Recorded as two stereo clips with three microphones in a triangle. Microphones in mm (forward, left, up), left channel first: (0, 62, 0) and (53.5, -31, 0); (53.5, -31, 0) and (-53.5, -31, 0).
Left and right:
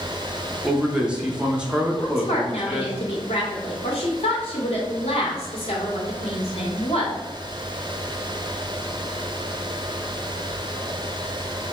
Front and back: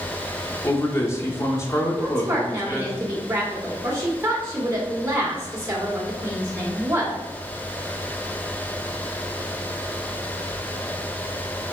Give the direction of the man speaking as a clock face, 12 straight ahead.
12 o'clock.